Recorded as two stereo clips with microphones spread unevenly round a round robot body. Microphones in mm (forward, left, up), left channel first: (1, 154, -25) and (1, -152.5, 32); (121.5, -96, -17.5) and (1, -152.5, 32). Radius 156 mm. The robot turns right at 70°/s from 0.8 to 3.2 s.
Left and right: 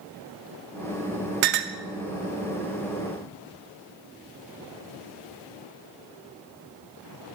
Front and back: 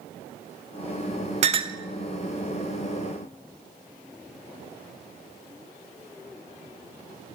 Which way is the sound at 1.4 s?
100° right.